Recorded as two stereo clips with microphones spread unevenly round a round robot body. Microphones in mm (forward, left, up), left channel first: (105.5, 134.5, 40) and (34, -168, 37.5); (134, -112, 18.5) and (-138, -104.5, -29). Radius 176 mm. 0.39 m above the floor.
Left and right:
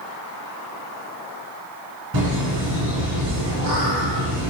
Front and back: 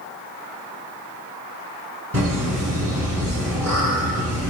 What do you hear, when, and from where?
2.1 s laughter: 145° right, 4 m